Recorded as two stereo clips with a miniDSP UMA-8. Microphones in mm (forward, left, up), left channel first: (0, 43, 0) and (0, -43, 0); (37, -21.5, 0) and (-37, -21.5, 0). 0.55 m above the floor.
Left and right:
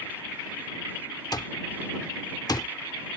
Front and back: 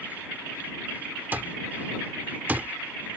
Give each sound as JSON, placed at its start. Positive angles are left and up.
{"t": 1.3, "sound": "an alarm clock", "azimuth_deg": 120}